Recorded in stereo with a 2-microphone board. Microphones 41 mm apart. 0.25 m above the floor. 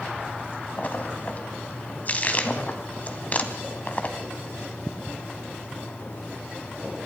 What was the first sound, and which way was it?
A splash, 35° left (ahead or behind).